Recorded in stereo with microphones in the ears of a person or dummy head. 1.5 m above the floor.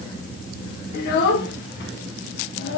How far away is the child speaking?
About 1.0 m.